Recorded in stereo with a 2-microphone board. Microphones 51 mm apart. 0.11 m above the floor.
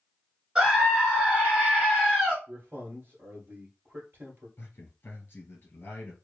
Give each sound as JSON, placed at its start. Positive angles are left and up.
{"t": 0.6, "sound": "a scream", "side_deg": -15, "distance_m": 1.3}
{"t": 2.5, "sound": "a man speaking", "side_deg": -45, "distance_m": 1.7}
{"t": 4.6, "sound": "a man speaking", "side_deg": 40, "distance_m": 1.7}